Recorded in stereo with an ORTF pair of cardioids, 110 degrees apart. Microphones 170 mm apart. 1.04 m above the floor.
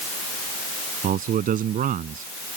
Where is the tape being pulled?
I don't hear tape being pulled.